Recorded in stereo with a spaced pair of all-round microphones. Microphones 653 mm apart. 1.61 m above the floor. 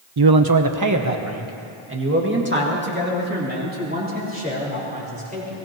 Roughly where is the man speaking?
Right.